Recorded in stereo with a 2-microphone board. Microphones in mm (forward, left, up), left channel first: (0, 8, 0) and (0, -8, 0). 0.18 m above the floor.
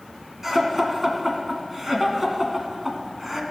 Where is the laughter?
20° right (ahead or behind), 1.7 m.